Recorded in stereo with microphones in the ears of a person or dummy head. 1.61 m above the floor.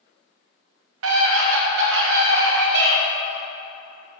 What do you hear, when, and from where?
1.0 s a scream: 80° right, 1.7 m; by 3.0 s 65° right (ahead or behind), 2.5 m